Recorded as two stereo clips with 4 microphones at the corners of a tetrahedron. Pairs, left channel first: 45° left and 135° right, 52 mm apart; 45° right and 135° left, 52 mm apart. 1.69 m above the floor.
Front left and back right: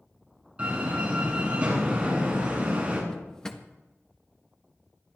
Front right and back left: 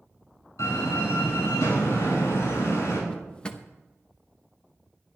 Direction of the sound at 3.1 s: 10° right.